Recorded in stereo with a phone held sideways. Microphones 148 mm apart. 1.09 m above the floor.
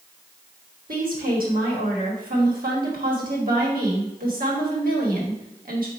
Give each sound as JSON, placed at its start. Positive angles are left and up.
{"t": 0.9, "sound": "a woman speaking", "side_deg": -75, "distance_m": 1.5}